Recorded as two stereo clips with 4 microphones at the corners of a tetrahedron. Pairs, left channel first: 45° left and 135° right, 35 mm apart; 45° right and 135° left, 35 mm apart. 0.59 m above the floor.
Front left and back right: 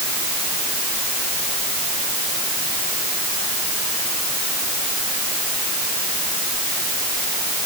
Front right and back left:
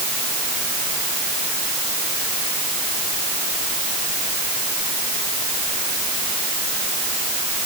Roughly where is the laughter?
No laughter in this recording.